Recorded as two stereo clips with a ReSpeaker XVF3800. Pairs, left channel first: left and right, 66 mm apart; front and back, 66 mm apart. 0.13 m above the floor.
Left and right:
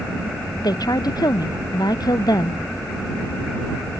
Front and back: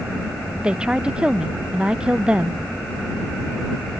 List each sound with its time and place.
0.6 s a woman speaking: 105° left